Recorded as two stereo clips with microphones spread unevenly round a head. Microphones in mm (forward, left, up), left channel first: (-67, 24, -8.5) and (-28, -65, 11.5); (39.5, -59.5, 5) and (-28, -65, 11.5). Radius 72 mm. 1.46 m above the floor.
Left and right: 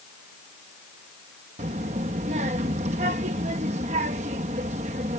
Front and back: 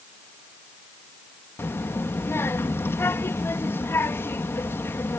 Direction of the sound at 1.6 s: 50° right.